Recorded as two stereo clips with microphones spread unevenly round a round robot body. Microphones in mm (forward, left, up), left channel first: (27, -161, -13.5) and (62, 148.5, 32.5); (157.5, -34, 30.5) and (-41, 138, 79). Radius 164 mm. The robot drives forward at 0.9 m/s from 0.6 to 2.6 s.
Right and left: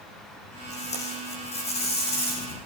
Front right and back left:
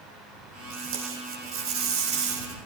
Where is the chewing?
No chewing in this recording.